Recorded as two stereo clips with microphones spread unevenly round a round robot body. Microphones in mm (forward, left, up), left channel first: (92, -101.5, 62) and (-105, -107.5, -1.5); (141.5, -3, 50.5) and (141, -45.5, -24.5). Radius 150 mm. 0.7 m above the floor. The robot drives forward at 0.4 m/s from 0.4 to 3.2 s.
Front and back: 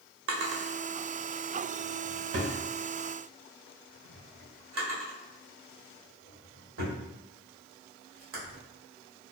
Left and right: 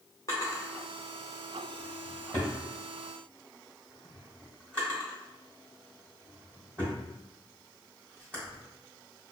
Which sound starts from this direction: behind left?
A drawer, at 0.3 s.